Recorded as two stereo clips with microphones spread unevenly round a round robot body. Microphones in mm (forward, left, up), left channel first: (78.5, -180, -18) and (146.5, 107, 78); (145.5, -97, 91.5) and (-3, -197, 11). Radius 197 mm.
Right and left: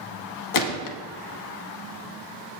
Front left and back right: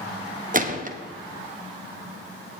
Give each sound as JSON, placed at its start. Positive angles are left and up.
{"t": 0.5, "sound": "a gunshot", "azimuth_deg": -95, "distance_m": 0.9}